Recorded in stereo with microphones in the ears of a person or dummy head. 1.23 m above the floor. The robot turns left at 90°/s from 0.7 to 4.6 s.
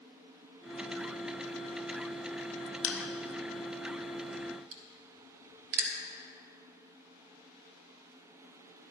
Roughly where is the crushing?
Left.